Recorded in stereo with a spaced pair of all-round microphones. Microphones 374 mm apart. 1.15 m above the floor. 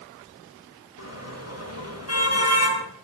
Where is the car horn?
40° left (ahead or behind), 6 m.